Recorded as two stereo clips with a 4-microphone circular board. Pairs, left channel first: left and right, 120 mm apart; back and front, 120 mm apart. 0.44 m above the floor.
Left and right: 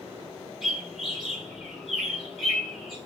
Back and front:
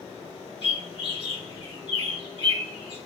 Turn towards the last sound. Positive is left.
turn(degrees=-175)